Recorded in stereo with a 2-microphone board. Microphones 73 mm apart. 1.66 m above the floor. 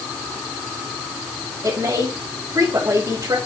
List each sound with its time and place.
1.6 s a woman speaking: 60° right (ahead or behind), 4 m